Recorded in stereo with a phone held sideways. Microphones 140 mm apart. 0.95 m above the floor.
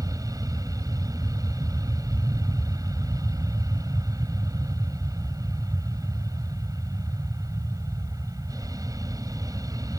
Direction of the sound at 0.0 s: 25° right (ahead or behind).